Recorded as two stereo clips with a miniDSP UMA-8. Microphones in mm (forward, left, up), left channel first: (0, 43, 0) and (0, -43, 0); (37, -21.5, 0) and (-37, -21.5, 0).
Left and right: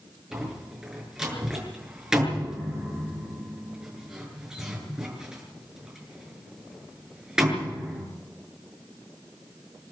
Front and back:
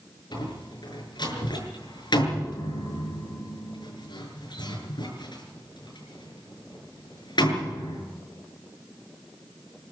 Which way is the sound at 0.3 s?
10° right.